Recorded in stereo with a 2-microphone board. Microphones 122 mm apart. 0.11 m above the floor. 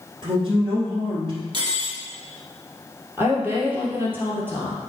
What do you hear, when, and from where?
0.2 s a woman speaking: 40° right (ahead or behind), 3 m
1.5 s cutlery clinking: 40° right (ahead or behind), 1.2 m
3.2 s a woman speaking: 15° right (ahead or behind), 3 m